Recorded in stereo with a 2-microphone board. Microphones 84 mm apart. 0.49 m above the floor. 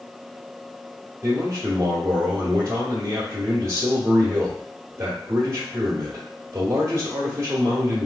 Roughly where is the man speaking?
Right.